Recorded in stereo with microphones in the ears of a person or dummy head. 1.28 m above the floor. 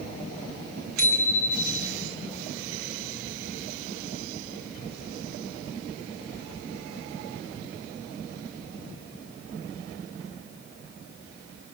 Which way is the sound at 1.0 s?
50° right (ahead or behind).